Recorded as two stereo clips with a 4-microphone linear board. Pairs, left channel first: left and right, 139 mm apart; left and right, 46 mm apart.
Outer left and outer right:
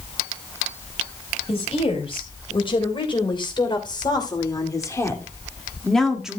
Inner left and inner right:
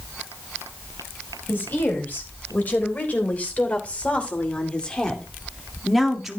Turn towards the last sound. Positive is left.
turn(degrees=-5)  # may be behind; listen again after turning